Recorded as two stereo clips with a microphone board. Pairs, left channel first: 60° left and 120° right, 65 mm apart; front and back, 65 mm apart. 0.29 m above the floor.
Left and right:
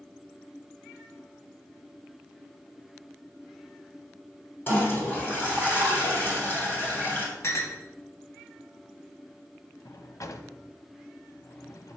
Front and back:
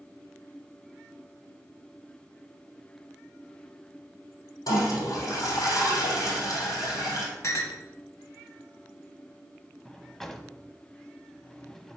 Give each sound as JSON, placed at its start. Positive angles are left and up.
{"t": 4.7, "sound": "a toilet flushing", "azimuth_deg": 0, "distance_m": 3.0}
{"t": 7.4, "sound": "a clink", "azimuth_deg": 25, "distance_m": 1.3}
{"t": 9.8, "sound": "a drawer", "azimuth_deg": 85, "distance_m": 0.6}